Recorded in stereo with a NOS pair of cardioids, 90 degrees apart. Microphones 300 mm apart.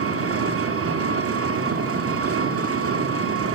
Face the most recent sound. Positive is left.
turn(degrees=-50)